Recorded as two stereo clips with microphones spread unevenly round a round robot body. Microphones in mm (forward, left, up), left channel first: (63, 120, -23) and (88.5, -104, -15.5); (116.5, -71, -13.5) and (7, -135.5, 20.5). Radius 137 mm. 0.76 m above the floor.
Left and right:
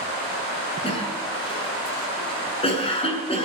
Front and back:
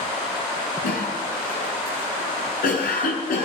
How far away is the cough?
About 8 m.